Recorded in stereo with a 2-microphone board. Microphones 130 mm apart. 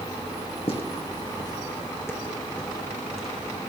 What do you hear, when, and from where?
0.7 s footsteps: 45° left (ahead or behind), 3 m; by 3.7 s 5° right (ahead or behind), 3.5 m